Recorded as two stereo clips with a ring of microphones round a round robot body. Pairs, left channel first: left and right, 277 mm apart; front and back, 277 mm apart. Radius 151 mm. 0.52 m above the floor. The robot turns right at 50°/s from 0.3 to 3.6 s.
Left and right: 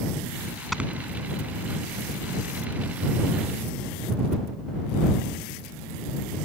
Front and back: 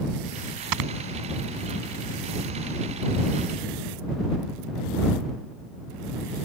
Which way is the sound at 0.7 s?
Straight behind.